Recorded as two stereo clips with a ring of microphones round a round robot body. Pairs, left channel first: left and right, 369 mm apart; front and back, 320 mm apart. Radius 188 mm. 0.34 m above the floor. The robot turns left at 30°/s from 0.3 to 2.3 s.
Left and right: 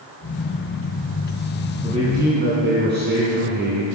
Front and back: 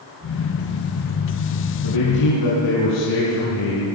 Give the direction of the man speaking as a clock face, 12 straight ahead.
12 o'clock.